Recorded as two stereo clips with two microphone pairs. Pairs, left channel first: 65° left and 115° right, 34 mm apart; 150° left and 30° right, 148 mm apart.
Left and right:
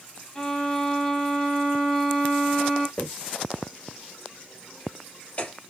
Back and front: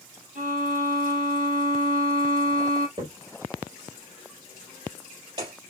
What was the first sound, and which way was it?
A violin, 10° right.